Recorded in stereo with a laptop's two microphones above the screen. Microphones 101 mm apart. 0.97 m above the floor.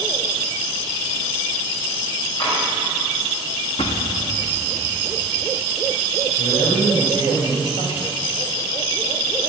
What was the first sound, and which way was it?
Tapping, 50° left (ahead or behind).